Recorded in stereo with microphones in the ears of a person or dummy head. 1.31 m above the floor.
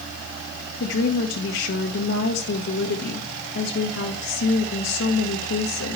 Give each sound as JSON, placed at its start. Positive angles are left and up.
{"t": 0.8, "sound": "a woman speaking", "side_deg": 70, "distance_m": 1.5}